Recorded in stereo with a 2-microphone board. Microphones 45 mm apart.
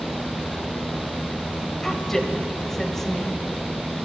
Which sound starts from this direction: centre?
A woman speaking, at 1.8 s.